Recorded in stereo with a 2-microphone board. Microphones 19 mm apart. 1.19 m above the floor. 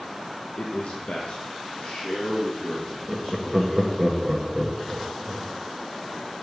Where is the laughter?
10° right (ahead or behind), 0.9 m.